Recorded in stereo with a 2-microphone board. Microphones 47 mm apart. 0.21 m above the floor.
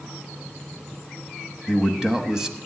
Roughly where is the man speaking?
Centre.